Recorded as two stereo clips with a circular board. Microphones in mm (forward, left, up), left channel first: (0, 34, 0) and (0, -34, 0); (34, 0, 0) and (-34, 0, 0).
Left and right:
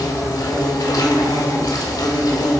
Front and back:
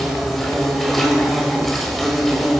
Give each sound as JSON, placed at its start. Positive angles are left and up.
{"t": 0.0, "sound": "an insect", "azimuth_deg": 90, "distance_m": 1.7}